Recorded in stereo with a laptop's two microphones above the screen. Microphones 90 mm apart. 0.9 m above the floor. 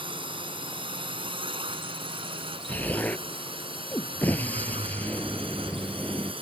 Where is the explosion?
20° left (ahead or behind).